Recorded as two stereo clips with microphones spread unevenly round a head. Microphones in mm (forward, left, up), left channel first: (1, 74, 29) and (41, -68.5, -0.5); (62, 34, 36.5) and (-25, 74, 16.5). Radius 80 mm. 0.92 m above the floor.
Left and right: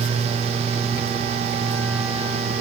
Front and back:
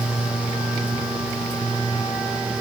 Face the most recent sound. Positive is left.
No sound to turn to.